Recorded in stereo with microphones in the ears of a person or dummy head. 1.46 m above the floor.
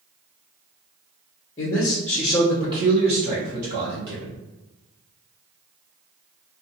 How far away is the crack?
I don't hear a crack.